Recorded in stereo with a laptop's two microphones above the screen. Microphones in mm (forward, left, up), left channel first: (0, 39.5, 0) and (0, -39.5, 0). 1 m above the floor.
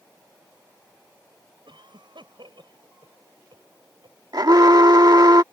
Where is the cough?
85° right.